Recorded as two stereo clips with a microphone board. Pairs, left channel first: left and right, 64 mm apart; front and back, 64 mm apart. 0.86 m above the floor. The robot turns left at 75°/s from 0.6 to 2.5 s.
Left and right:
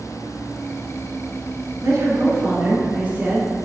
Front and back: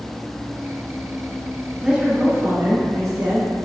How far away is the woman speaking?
About 2.5 m.